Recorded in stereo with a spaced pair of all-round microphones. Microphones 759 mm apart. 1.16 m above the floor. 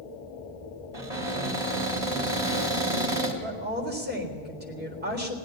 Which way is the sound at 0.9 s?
50° right (ahead or behind).